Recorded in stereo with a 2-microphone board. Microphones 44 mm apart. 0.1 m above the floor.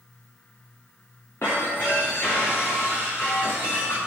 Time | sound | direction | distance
1.4 | breaking glass | 75° left (ahead or behind) | 6.5 m